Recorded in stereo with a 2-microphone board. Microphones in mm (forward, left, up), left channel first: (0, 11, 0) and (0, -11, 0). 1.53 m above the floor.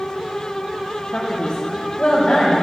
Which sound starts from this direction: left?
A man speaking, at 1.1 s.